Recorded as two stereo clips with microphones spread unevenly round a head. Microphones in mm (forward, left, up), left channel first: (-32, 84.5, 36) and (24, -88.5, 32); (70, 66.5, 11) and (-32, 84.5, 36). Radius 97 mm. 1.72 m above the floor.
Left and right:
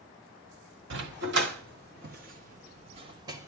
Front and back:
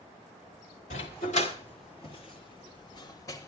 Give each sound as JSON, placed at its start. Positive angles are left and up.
{"t": 0.9, "sound": "a dog barking", "azimuth_deg": -45, "distance_m": 2.0}